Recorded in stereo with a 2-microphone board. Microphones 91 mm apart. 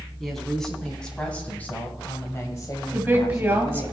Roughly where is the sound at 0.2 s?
Centre.